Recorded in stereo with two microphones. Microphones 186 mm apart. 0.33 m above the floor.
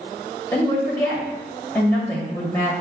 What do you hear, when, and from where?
0.5 s a woman speaking: 10° left (ahead or behind), 1.7 m